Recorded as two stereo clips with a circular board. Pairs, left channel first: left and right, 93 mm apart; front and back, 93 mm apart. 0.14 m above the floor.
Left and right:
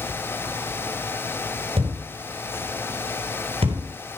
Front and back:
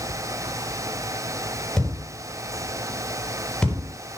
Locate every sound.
1.8 s a thud: 85° right, 10 m